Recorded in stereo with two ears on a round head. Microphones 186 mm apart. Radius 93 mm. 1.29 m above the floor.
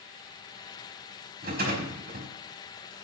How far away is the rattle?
About 5 m.